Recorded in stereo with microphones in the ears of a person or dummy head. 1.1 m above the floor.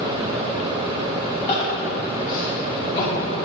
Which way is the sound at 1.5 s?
40° left (ahead or behind).